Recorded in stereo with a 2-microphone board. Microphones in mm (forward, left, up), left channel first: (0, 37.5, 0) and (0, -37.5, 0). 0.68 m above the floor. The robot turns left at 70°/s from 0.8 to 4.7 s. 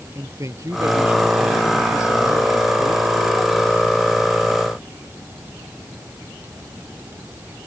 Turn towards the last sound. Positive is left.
turn(degrees=-50)